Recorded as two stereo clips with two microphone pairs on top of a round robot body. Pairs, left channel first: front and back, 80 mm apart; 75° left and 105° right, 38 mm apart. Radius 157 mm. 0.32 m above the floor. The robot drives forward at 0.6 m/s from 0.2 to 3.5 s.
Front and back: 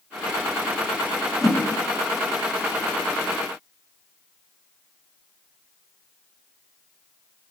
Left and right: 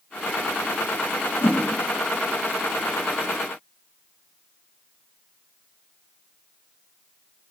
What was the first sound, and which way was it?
A whoosh, 95° left.